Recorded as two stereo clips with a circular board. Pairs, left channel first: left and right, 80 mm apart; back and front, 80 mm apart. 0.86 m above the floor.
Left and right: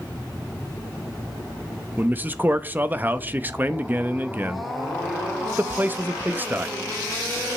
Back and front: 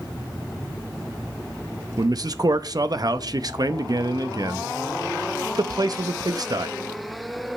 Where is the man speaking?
25° right, 0.6 m.